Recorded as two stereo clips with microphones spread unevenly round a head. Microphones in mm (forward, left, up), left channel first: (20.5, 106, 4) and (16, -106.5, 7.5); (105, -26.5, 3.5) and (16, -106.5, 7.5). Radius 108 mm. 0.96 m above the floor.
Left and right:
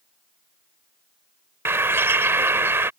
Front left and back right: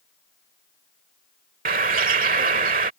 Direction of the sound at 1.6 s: 170° right.